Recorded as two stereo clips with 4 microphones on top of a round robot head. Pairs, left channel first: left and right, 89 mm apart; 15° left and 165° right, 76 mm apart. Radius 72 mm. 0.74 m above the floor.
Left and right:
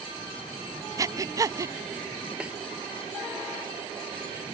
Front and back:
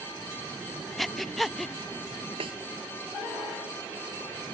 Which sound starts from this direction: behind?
A snare drum, at 2.4 s.